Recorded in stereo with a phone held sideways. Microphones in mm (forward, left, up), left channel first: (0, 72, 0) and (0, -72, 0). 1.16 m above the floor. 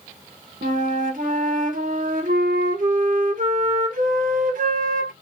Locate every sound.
0.6 s a flute: 70° right (ahead or behind), 0.7 m